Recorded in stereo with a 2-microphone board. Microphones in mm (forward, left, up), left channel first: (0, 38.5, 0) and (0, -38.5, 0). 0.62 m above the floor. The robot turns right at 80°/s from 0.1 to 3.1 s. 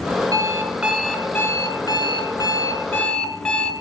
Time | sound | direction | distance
0.3 | an alarm clock | 60° right | 1.6 m